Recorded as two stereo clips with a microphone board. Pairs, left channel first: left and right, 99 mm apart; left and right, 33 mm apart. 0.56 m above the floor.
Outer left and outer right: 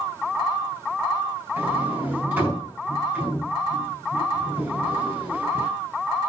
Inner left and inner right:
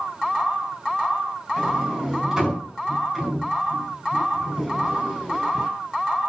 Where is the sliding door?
15° right (ahead or behind), 4.5 m.